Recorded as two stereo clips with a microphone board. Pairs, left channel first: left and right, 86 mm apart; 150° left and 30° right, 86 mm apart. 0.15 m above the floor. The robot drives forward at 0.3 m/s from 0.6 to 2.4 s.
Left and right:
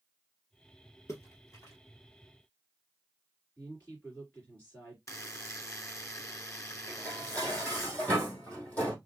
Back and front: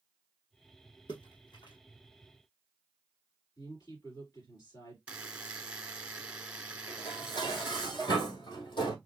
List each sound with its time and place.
1.1 s a splash: 140° left, 1.7 m; by 1.8 s 145° left, 1.9 m
3.6 s a woman speaking: 155° left, 3 m
5.1 s a buzzer: 45° left, 0.8 m
6.9 s dishes clattering: 160° left, 3.5 m